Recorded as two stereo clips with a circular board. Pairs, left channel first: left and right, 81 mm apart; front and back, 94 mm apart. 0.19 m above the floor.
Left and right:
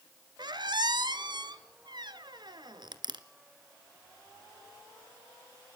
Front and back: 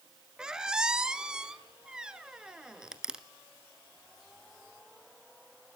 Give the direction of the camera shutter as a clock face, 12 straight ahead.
I don't hear a camera shutter.